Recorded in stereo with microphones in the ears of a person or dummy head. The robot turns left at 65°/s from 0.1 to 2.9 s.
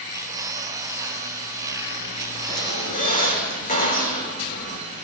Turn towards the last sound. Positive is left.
turn(degrees=40)  # may be behind; listen again after turning